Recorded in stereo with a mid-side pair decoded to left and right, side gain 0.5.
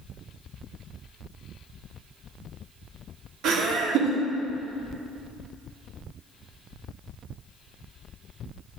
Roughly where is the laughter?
Right.